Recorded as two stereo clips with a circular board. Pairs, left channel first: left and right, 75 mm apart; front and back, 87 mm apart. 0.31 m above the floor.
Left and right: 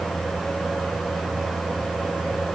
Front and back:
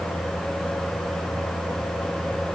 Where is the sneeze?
I don't hear a sneeze.